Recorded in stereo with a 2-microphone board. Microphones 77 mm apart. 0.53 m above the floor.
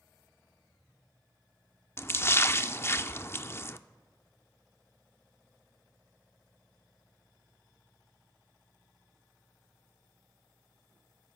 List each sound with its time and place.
2.0 s a splash: 30° left (ahead or behind), 0.5 m